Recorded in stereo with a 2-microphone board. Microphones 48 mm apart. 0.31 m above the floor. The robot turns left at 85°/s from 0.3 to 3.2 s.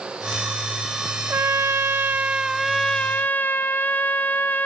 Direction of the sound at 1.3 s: 60° right.